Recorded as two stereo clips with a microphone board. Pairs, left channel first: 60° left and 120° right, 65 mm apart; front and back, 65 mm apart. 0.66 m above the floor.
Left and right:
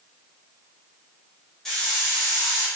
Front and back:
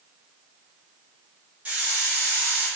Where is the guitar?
No guitar in this recording.